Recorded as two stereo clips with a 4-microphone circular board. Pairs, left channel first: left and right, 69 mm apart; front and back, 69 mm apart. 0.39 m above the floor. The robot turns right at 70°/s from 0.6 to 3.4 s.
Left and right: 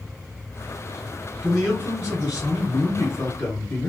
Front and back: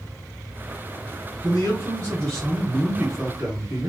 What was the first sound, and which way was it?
A man speaking, 5° left.